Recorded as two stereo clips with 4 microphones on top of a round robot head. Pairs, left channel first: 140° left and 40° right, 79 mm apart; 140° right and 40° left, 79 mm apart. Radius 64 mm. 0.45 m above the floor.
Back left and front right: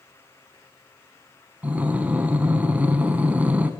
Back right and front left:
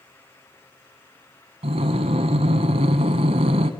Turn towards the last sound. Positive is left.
turn(degrees=35)